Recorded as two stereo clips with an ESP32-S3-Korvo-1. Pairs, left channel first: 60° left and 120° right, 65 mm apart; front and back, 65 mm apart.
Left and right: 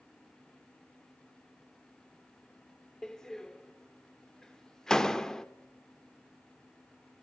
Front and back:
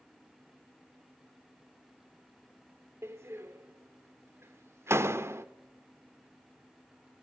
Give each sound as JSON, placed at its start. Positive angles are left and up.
{"t": 3.0, "sound": "a door slam", "azimuth_deg": 140, "distance_m": 1.1}